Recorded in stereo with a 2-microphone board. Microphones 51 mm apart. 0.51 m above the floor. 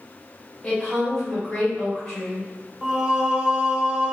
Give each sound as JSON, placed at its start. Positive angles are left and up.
{"t": 0.6, "sound": "a woman speaking", "side_deg": 10, "distance_m": 1.6}
{"t": 2.8, "sound": "singing", "side_deg": -15, "distance_m": 0.7}